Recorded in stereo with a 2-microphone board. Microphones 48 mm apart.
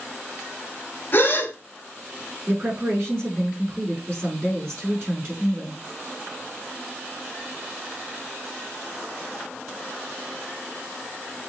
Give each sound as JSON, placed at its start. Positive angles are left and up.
{"t": 1.1, "sound": "a gasp", "side_deg": 40, "distance_m": 1.7}
{"t": 2.5, "sound": "a woman speaking", "side_deg": -50, "distance_m": 4.5}